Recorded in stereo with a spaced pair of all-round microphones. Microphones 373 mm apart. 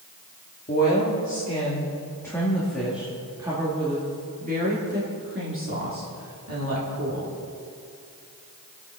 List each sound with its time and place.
0.7 s a woman speaking: 25° left (ahead or behind), 2.5 m; by 7.3 s 45° right (ahead or behind), 3.5 m